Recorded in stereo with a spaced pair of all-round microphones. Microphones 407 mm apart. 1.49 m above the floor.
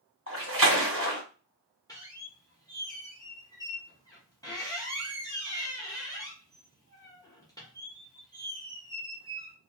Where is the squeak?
10° left (ahead or behind), 0.8 m.